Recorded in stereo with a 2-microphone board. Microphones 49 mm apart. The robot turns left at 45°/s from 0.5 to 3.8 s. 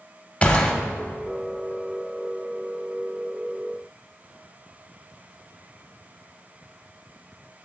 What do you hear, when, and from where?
0.4 s a gunshot: 25° left (ahead or behind), 0.7 m; by 0.7 s 15° left (ahead or behind), 0.7 m